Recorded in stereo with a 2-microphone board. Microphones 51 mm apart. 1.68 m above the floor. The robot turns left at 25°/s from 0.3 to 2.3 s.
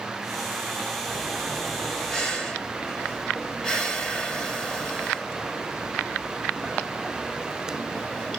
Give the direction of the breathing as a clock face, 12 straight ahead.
6 o'clock.